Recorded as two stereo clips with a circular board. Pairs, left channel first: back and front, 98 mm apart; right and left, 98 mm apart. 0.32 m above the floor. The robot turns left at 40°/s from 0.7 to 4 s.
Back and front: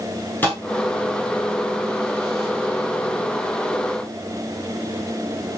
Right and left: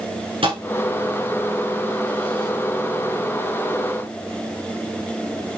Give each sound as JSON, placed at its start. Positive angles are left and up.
{"t": 0.4, "sound": "a thud", "azimuth_deg": 110, "distance_m": 7.0}